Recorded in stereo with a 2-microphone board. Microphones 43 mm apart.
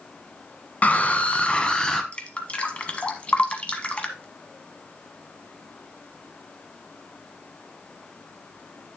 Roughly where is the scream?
Left.